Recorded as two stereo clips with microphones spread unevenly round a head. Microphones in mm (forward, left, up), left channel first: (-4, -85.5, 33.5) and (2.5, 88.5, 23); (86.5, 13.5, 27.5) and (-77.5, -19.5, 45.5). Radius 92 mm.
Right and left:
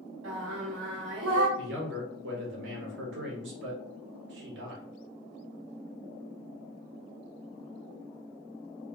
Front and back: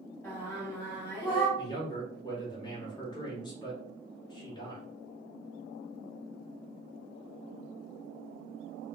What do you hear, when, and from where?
0.2 s singing: 90° left, 2.5 m
1.6 s a man speaking: 75° left, 1.7 m